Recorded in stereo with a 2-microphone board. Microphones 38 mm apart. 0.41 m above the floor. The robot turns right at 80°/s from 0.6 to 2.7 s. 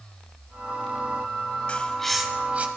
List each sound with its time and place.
1.7 s a bird: 30° left (ahead or behind), 1.3 m; by 2.7 s 40° right (ahead or behind), 1.3 m